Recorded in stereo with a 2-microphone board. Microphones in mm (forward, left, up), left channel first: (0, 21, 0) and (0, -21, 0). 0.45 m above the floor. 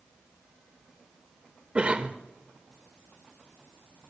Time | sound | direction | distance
1.8 | a cough | 25° right (ahead or behind) | 1.2 m